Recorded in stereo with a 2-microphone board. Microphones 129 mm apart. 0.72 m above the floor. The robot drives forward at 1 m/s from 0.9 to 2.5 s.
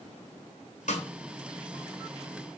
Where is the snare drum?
75° left (ahead or behind), 3 m.